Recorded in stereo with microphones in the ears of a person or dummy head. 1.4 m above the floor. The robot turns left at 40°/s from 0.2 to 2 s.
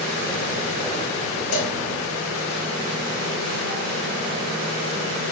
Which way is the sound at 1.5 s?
80° left.